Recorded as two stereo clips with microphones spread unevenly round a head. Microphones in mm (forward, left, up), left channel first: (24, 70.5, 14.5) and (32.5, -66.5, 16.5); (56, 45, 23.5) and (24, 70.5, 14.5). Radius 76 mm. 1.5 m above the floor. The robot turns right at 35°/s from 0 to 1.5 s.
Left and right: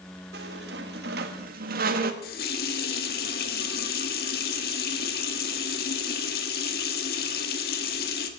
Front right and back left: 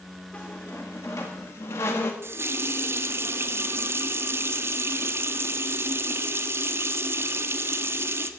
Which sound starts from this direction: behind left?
A running tap, at 2.2 s.